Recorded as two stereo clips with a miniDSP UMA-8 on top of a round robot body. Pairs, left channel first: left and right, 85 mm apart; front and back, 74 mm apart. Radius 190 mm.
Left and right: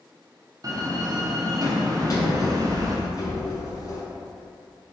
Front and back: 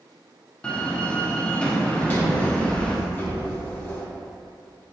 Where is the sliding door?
65° left, 1.2 m.